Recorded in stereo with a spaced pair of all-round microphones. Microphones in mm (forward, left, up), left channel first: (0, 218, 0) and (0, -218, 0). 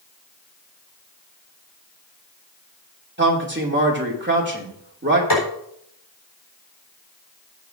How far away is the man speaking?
About 2.5 m.